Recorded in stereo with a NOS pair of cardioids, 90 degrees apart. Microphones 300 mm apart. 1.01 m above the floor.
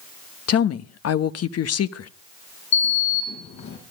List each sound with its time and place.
0.5 s a woman speaking: 55° left, 1.2 m
2.7 s a sliding door: 65° left, 6.5 m